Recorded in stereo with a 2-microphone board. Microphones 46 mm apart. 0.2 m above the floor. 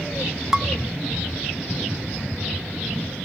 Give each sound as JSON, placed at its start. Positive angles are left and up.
{"t": 0.5, "sound": "dishes clattering", "side_deg": -10, "distance_m": 0.9}